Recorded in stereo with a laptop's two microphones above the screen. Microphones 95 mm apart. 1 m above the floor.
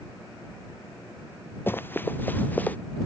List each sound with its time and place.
1.7 s running footsteps: 20° left (ahead or behind); by 2.8 s 15° left (ahead or behind)